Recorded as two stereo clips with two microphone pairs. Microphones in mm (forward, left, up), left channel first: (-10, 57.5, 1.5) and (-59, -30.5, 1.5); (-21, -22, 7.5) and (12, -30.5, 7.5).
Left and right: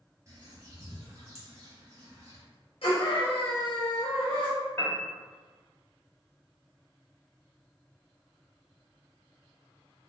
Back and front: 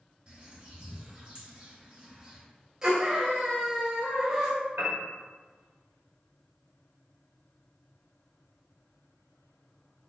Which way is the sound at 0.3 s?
65° right.